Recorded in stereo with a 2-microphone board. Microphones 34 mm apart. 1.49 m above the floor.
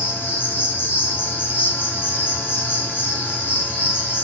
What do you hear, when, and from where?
0.0 s an insect: 70° left (ahead or behind), 7.5 m